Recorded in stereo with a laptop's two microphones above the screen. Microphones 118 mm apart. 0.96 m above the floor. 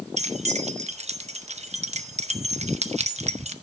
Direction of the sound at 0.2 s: 70° right (ahead or behind).